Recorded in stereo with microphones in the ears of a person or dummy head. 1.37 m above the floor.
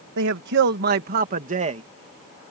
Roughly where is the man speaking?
Right.